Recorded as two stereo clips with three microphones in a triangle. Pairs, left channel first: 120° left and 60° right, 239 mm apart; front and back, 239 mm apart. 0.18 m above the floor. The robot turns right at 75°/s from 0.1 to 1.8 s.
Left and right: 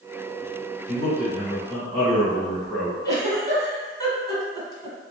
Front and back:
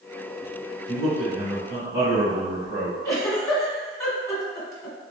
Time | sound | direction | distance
0.9 | a man speaking | 135° left | 1.5 m
3.0 | a giggle | 60° left | 1.3 m